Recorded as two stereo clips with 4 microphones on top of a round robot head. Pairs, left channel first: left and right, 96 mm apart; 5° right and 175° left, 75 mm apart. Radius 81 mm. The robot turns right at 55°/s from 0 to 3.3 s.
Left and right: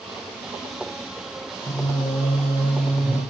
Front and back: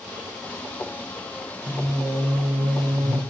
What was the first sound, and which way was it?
Singing, 110° left.